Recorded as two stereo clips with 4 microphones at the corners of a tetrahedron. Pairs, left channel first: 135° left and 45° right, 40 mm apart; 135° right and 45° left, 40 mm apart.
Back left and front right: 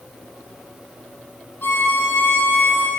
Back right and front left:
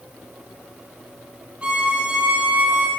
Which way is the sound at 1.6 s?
105° left.